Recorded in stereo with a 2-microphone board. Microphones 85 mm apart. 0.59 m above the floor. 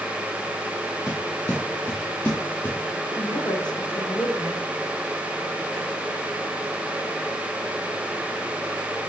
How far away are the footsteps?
About 4 m.